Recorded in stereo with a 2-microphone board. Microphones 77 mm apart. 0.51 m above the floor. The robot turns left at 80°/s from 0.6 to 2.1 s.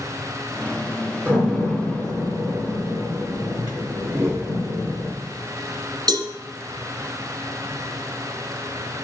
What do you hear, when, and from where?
1.2 s a door slam: 25° right (ahead or behind), 4 m; by 5.1 s 45° left (ahead or behind), 4 m
4.1 s a whoosh: 30° right (ahead or behind), 1.5 m
6.1 s a cowbell: 60° right (ahead or behind), 1.4 m